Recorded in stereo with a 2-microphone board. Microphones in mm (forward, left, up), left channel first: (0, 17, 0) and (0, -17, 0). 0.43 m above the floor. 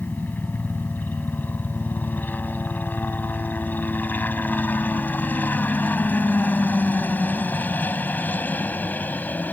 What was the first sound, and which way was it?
A helicopter, 65° left (ahead or behind).